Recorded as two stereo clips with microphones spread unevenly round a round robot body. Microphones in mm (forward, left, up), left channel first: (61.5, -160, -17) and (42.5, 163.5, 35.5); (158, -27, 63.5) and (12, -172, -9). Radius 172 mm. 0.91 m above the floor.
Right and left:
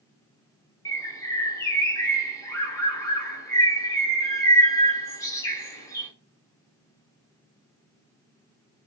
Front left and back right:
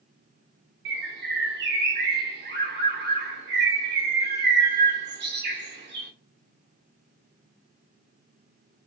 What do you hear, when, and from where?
0.8 s a bird: 175° right, 0.5 m